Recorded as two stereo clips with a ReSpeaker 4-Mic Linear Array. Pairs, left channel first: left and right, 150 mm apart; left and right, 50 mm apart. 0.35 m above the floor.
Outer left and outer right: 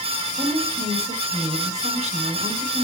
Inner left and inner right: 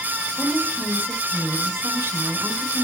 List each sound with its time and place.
0.4 s a woman speaking: 45° right (ahead or behind), 3 m